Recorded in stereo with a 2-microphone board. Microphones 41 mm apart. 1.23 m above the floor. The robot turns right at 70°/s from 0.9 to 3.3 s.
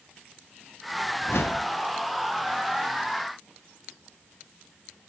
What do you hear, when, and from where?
1.2 s a whoosh: 65° left, 0.7 m; by 1.7 s 100° left, 0.7 m